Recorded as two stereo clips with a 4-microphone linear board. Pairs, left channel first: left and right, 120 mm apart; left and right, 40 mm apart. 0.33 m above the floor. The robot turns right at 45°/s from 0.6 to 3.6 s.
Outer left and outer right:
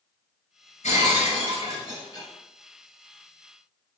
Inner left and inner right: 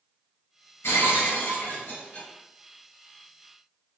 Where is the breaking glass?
95° left, 1.5 m; by 2.3 s 160° left, 1.5 m.